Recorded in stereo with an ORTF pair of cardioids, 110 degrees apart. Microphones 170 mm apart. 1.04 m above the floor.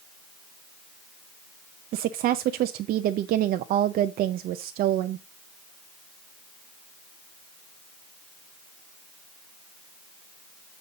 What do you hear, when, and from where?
1.9 s a woman speaking: 65° right, 0.6 m